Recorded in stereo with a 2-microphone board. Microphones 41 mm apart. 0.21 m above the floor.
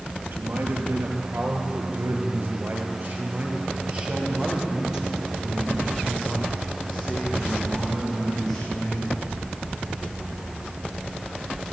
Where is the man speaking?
70° right (ahead or behind), 4.5 m; by 9.2 s 5° left (ahead or behind), 10 m.